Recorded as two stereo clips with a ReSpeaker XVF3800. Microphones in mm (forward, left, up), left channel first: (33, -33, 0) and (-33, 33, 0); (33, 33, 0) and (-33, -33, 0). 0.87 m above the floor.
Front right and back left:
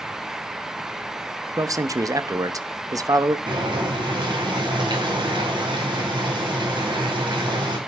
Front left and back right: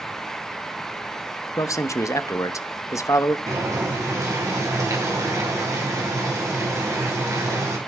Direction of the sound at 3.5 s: 170° left.